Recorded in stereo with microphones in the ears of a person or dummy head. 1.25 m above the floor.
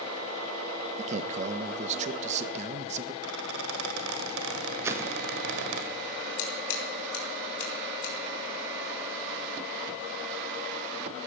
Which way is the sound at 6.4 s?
75° left (ahead or behind).